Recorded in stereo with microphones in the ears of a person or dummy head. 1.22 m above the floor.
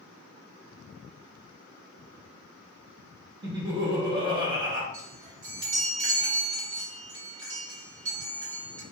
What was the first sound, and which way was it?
Laughter, 25° right (ahead or behind).